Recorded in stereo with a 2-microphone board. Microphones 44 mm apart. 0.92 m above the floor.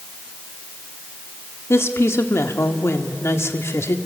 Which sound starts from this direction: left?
A woman speaking, at 1.7 s.